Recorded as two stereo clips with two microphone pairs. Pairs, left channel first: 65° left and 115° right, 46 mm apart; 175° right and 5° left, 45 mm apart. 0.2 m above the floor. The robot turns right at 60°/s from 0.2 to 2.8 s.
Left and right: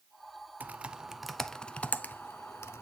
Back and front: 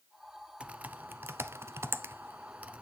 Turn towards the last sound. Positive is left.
turn(degrees=65)